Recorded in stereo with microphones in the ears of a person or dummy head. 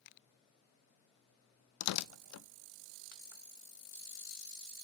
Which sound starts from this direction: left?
Tearing paper, at 1.8 s.